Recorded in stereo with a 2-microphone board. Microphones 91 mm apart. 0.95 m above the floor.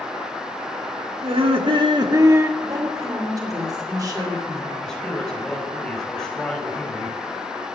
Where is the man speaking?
5° left (ahead or behind), 4.5 m.